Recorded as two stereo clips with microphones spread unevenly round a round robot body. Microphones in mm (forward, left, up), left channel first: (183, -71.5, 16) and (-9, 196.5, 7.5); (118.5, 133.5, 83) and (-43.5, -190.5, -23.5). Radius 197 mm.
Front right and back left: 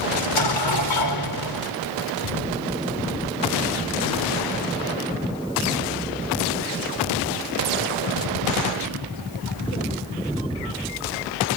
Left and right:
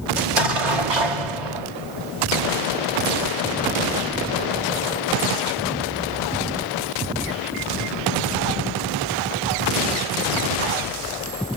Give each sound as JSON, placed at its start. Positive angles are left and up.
{"t": 0.2, "sound": "an explosion", "azimuth_deg": -105, "distance_m": 1.5}